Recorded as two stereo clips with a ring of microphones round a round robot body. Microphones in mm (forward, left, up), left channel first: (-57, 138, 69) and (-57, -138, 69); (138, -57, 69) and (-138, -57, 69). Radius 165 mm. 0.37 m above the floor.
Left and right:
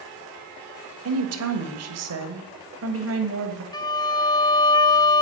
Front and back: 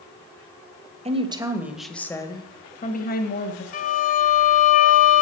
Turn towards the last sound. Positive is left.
turn(degrees=25)